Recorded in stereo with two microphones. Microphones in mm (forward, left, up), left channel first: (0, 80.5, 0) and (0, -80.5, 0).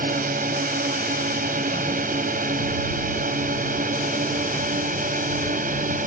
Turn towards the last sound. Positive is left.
turn(degrees=-60)  # may be behind; listen again after turning